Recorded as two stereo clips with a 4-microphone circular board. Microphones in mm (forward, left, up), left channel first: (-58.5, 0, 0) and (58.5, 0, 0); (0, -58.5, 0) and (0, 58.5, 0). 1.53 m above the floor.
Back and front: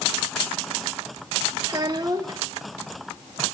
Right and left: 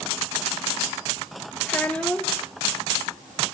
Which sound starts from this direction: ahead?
A child speaking, at 1.7 s.